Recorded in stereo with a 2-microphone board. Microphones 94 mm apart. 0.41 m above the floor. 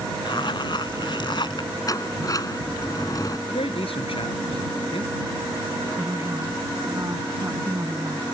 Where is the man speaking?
75° left (ahead or behind).